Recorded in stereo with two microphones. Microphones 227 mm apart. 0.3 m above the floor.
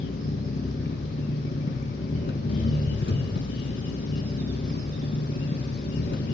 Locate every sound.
0.0 s an engine running: 55° left (ahead or behind), 1.2 m